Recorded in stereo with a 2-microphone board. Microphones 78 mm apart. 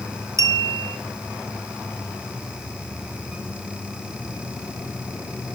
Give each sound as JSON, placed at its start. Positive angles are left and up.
{"t": 0.4, "sound": "a clink", "side_deg": -40, "distance_m": 0.7}